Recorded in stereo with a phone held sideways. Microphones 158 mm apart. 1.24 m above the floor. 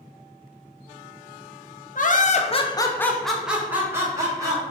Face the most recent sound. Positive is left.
turn(degrees=-25)  # may be behind; listen again after turning